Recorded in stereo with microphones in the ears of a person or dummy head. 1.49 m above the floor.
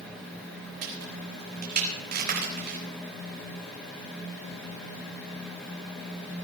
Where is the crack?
50° right (ahead or behind), 4.5 m.